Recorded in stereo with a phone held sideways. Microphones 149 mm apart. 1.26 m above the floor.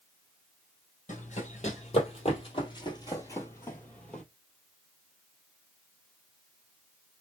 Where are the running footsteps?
55° left (ahead or behind), 2 m; by 4.2 s 5° left (ahead or behind), 1.6 m.